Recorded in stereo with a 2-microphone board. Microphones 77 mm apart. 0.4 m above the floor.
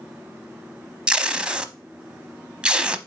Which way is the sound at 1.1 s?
15° right (ahead or behind).